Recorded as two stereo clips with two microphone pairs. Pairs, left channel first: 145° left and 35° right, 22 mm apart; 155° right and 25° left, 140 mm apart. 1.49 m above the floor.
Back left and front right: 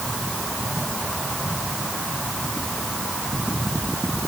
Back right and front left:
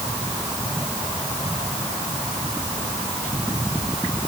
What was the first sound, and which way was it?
Only background noise.